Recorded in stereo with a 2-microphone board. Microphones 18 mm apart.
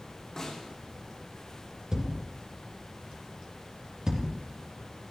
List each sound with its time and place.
0.4 s a snare drum: 30° left (ahead or behind), 8 m
1.9 s a thud: 30° right (ahead or behind), 2.5 m